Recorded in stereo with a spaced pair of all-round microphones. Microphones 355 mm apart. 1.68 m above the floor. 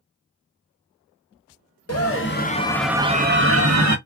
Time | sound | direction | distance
1.9 | a scream | 45° left (ahead or behind) | 0.9 m